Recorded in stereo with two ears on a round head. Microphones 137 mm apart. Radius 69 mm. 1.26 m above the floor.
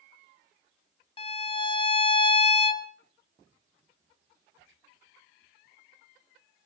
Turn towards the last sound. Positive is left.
turn(degrees=35)  # may be behind; listen again after turning